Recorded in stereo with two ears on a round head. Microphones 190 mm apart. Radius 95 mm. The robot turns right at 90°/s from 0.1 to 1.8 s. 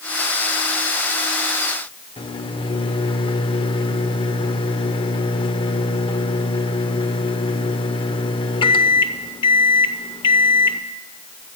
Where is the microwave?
25° left (ahead or behind), 0.7 m.